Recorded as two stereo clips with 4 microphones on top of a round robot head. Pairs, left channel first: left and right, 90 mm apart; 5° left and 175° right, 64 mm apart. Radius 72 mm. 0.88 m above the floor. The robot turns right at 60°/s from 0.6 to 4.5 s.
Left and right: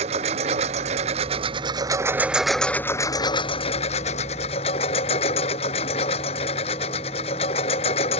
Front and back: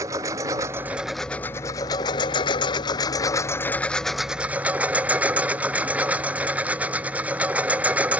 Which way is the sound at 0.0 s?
115° right.